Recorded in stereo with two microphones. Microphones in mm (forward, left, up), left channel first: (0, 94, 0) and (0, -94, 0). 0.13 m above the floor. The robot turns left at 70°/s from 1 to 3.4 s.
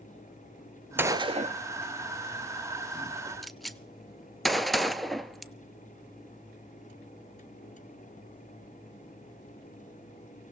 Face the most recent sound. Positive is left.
turn(degrees=0)  # may be behind; listen again after turning